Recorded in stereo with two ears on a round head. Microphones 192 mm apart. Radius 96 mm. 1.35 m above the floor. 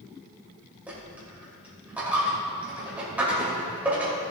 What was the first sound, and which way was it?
A dropped coin, 5° right (ahead or behind).